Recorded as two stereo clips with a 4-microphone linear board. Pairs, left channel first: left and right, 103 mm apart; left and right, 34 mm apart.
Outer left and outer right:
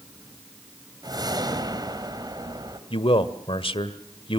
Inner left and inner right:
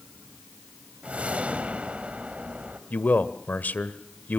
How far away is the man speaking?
About 1.7 m.